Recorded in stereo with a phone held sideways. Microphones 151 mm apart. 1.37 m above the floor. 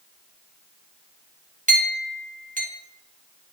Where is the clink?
60° right (ahead or behind), 1.7 m.